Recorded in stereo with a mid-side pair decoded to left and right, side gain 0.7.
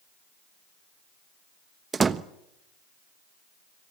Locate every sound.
1.9 s a door slam: 25° right, 1.2 m